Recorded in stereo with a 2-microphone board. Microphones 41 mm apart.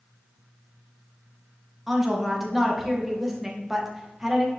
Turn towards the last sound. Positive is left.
turn(degrees=-5)  # may be behind; listen again after turning